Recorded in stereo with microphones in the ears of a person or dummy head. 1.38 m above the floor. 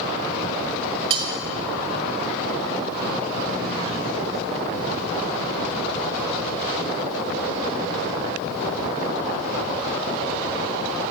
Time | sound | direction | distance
1.1 | cutlery clinking | 30° right (ahead or behind) | 0.7 m